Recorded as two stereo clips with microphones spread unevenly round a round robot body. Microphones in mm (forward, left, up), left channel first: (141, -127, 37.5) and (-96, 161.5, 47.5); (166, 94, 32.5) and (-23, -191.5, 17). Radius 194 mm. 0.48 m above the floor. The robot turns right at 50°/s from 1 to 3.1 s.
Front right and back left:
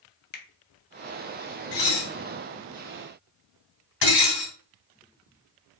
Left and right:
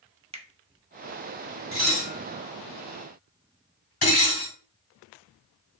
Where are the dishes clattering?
60° right, 2 m; by 4.5 s 10° left, 2 m.